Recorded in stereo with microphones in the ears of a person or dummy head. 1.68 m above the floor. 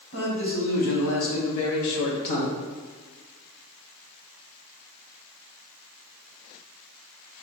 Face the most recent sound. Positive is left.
turn(degrees=45)  # may be behind; listen again after turning